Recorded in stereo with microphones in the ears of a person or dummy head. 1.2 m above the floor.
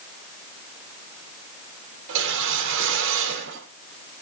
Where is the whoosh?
70° right (ahead or behind), 5.5 m.